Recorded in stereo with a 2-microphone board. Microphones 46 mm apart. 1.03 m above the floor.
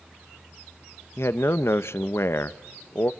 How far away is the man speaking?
About 1.0 m.